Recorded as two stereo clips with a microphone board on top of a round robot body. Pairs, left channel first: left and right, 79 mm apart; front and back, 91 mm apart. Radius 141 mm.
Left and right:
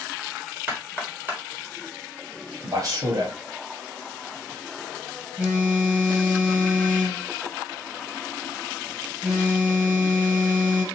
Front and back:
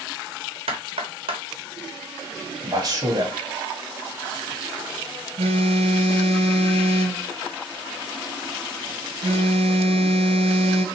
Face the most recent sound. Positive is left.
turn(degrees=-170)